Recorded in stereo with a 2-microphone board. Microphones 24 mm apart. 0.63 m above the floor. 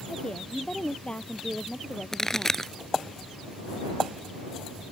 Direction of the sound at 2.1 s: 20° left (ahead or behind).